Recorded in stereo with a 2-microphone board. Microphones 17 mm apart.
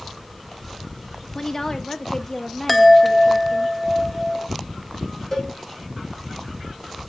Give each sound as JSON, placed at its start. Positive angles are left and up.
{"t": 1.4, "sound": "a woman speaking", "side_deg": 25, "distance_m": 0.8}
{"t": 2.7, "sound": "a chime", "side_deg": 0, "distance_m": 0.5}
{"t": 5.3, "sound": "a cowbell", "side_deg": 20, "distance_m": 4.0}